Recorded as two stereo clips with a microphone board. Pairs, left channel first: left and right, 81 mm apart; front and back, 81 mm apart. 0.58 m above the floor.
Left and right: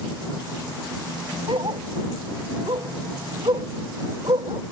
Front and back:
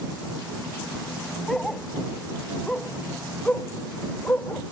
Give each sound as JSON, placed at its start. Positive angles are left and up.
{"t": 1.5, "sound": "a dog barking", "azimuth_deg": -85}